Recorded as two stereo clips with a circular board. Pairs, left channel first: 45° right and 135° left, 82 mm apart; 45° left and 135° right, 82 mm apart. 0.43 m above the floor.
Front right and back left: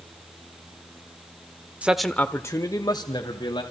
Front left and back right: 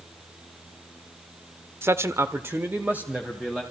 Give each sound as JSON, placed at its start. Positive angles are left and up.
{"t": 1.8, "sound": "a man speaking", "azimuth_deg": -165, "distance_m": 0.9}